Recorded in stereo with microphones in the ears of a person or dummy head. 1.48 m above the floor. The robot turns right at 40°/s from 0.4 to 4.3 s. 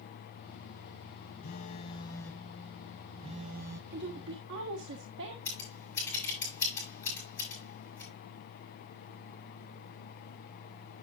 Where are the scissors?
15° left (ahead or behind), 7 m.